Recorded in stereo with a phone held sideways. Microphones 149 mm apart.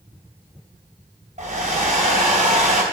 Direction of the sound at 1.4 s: 55° right (ahead or behind).